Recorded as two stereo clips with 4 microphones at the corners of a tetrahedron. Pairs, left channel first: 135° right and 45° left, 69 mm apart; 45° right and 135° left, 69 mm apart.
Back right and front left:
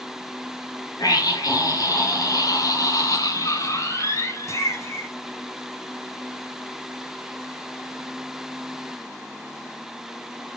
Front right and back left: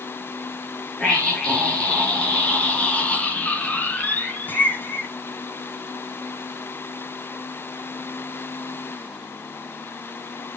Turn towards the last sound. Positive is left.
turn(degrees=-90)